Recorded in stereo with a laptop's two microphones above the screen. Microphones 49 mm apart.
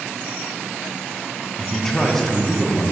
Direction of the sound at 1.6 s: 10° left (ahead or behind).